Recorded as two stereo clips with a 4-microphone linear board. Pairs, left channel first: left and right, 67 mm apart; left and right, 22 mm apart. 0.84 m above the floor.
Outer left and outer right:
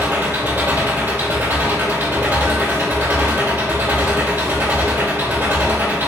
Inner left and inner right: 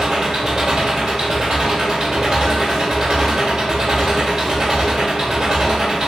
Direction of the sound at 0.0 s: 30° right (ahead or behind).